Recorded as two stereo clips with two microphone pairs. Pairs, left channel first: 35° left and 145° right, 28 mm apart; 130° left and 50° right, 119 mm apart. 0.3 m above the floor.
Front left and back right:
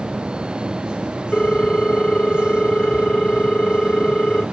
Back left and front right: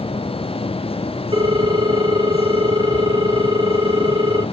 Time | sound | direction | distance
1.3 | a ringtone | 10° right | 1.1 m